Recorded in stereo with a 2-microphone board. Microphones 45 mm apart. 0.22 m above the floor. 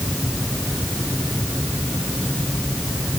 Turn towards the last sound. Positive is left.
No sound to turn to.